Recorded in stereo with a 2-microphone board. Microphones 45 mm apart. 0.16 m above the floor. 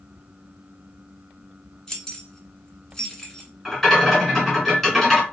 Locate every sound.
1.9 s keys jangling: 10° left (ahead or behind), 1.1 m
3.6 s a rattle: centre (ahead or behind), 1.9 m